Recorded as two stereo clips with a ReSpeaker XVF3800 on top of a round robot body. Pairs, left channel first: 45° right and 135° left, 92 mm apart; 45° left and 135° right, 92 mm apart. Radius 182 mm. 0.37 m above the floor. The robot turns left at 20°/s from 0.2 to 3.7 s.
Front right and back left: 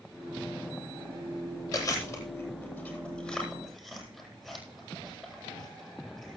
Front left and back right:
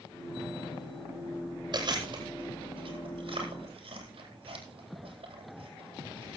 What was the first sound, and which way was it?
Chewing, 100° right.